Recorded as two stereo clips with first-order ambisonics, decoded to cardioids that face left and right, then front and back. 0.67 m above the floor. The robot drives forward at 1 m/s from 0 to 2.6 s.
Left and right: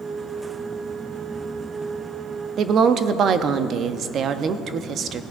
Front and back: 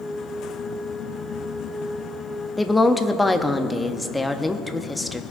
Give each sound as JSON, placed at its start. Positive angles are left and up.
{"t": 2.6, "sound": "a woman speaking", "azimuth_deg": -75, "distance_m": 0.5}